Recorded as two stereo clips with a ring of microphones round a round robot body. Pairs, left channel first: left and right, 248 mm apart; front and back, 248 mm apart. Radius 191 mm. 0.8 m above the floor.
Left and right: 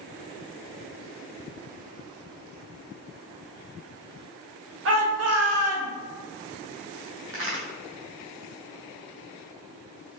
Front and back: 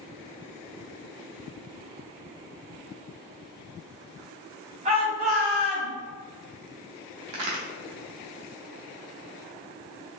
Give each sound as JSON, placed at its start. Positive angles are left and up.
{"t": 4.8, "sound": "a shout", "azimuth_deg": -120, "distance_m": 0.8}
{"t": 7.3, "sound": "a crack", "azimuth_deg": -145, "distance_m": 0.6}